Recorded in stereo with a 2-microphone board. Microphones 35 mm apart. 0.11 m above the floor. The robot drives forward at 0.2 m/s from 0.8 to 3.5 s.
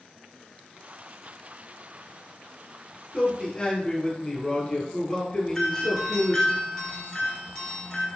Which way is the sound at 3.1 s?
25° left (ahead or behind).